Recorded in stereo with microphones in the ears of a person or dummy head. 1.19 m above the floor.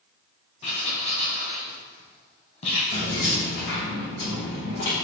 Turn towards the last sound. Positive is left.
turn(degrees=65)  # may be behind; listen again after turning